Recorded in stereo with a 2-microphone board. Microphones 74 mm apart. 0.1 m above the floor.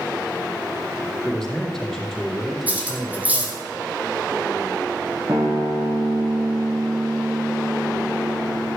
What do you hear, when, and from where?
1.2 s a man speaking: 5° left (ahead or behind), 3.5 m
2.7 s cutlery clinking: 20° right (ahead or behind), 3 m
5.3 s a guitar: 40° right (ahead or behind), 3 m